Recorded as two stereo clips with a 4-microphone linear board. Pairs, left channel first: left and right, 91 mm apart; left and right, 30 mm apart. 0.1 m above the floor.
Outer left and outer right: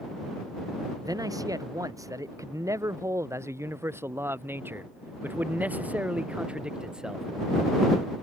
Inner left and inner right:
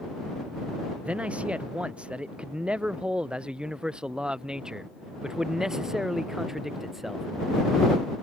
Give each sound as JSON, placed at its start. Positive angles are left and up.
{"t": 1.0, "sound": "a man speaking", "side_deg": -40}